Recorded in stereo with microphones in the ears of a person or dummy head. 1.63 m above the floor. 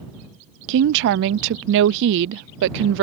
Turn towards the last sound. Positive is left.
turn(degrees=-65)  # may be behind; listen again after turning